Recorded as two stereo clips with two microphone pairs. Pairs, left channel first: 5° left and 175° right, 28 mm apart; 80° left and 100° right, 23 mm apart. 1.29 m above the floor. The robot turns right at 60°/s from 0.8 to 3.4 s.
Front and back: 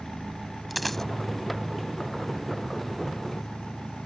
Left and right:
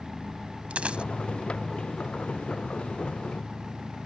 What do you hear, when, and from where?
0.7 s a dropped coin: 85° right; by 1.0 s 70° right